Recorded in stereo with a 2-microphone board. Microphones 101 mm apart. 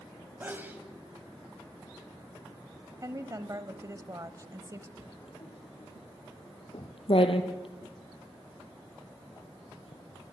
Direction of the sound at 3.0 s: 35° right (ahead or behind).